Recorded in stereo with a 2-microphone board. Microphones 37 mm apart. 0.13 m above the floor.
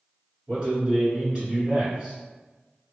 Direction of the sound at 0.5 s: 30° right (ahead or behind).